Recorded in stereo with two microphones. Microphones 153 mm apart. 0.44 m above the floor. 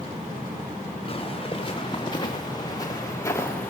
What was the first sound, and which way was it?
Footsteps, 35° left (ahead or behind).